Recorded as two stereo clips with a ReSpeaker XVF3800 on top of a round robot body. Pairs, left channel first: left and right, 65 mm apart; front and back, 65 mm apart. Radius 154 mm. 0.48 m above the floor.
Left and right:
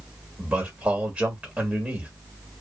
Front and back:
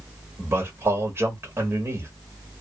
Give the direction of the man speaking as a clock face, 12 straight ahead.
5 o'clock.